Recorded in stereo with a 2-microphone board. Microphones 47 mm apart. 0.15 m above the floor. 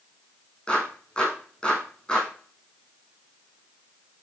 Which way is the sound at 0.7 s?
15° left (ahead or behind).